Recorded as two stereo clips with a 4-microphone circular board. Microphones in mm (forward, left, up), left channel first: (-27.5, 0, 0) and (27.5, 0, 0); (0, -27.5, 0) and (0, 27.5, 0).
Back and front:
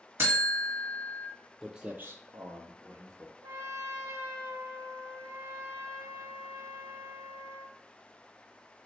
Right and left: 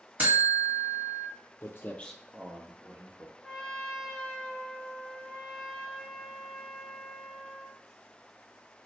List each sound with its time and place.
0.2 s a buzzer: 35° left, 1.0 m
1.6 s footsteps: 85° right, 0.6 m; by 3.3 s 40° left, 1.5 m
3.4 s a trumpet: 10° right, 0.6 m